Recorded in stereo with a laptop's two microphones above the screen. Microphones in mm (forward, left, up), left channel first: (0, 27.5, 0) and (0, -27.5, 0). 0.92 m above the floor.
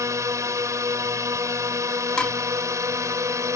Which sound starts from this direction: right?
A drone, at 0.0 s.